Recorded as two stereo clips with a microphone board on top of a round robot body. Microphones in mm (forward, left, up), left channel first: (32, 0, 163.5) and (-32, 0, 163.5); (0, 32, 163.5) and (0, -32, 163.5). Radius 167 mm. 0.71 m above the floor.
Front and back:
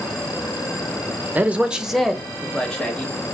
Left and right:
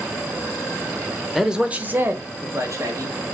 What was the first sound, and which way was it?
A man speaking, 170° right.